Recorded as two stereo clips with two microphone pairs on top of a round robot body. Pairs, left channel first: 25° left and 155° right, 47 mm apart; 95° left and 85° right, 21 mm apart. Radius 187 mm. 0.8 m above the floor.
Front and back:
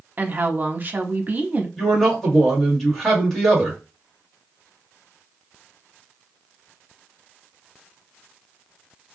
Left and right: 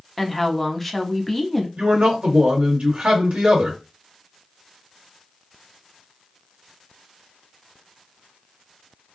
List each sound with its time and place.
0.2 s a woman speaking: 175° right, 0.9 m
1.8 s a man speaking: 65° right, 1.6 m